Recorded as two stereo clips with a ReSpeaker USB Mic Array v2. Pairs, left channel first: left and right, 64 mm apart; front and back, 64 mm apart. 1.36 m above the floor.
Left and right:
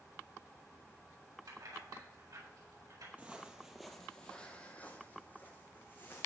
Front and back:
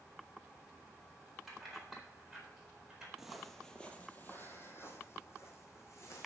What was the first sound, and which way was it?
Keys jangling, 90° right.